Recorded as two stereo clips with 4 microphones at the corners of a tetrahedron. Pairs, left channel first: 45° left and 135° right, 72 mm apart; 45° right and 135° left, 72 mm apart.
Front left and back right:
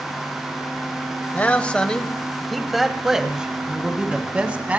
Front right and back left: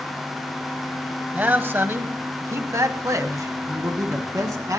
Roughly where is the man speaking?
Left.